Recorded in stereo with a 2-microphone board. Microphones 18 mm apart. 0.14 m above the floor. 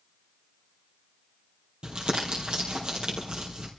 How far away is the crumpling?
About 3.5 m.